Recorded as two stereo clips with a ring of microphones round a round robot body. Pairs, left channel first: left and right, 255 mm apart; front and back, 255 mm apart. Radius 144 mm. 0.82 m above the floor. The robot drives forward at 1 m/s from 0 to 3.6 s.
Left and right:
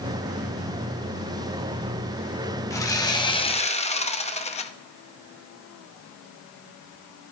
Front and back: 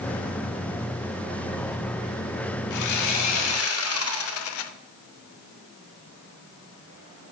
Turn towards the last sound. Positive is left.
turn(degrees=25)